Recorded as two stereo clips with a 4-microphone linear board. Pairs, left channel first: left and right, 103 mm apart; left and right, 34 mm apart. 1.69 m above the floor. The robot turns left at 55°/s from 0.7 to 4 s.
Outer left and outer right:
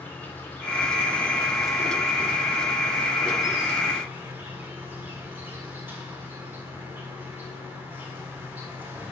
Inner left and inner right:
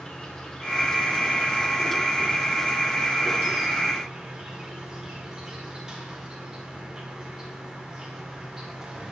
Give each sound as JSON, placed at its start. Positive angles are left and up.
{"t": 0.0, "sound": "an insect", "side_deg": 20, "distance_m": 1.4}